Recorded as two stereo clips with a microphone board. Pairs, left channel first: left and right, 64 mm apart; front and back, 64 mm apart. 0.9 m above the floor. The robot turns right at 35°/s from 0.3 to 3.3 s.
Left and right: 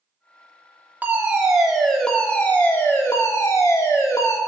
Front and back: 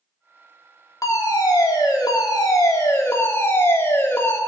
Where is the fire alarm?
30° right, 3 m; by 4.4 s 50° left, 3 m.